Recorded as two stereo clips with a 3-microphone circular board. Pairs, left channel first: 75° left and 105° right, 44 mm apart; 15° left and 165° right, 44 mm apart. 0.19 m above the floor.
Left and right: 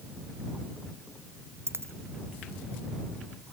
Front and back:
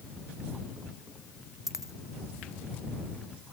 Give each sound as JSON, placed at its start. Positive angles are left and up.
{"t": 1.7, "sound": "a dropped coin", "azimuth_deg": -85}